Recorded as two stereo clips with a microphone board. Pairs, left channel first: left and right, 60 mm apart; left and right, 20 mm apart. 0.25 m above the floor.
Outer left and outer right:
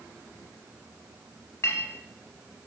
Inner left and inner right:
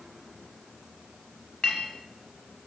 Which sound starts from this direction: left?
A clink, at 1.6 s.